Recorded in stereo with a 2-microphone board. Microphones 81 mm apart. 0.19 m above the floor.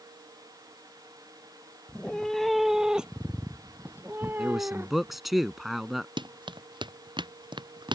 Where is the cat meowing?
15° left (ahead or behind); by 5.2 s 30° right (ahead or behind).